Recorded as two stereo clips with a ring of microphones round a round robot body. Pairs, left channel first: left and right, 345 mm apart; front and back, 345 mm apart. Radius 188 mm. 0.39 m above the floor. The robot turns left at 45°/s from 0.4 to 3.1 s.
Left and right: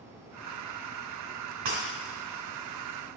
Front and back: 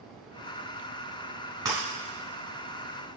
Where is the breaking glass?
100° right, 3 m; by 1.8 s 105° right, 3 m.